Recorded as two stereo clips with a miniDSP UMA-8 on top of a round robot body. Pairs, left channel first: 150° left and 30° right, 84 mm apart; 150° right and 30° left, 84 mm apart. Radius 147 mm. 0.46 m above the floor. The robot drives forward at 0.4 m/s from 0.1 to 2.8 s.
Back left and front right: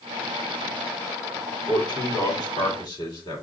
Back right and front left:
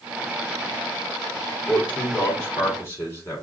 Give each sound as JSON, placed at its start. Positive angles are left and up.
{"t": 1.7, "sound": "a man speaking", "azimuth_deg": 145, "distance_m": 2.0}